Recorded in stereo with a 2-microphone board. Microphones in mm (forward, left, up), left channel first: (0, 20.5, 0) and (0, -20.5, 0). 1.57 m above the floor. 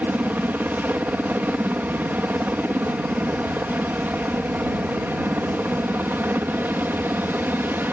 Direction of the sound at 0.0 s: 50° right (ahead or behind).